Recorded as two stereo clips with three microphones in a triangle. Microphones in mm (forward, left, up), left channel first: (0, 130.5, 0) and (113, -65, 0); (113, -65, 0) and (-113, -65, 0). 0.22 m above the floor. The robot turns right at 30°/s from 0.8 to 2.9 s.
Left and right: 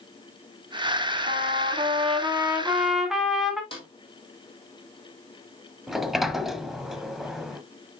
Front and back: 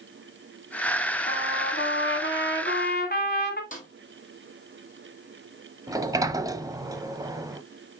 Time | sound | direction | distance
1.3 | a trumpet | 20° right | 1.4 m
3.7 | a snare drum | 55° left | 2.5 m
5.9 | a sliding door | 145° right | 0.6 m